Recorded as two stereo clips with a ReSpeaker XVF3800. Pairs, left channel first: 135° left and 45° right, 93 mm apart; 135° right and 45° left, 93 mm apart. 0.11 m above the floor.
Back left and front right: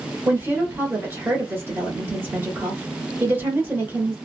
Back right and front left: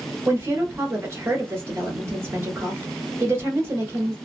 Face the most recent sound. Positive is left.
turn(degrees=5)